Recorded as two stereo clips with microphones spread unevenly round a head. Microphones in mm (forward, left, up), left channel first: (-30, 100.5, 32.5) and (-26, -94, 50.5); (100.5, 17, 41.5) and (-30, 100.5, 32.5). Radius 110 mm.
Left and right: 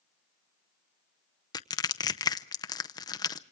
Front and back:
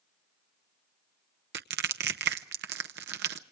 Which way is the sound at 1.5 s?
160° left.